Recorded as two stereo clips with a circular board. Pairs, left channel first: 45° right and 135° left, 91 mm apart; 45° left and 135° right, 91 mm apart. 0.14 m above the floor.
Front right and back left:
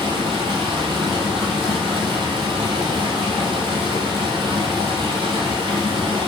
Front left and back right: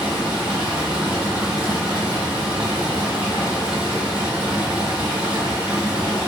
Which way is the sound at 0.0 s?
145° left.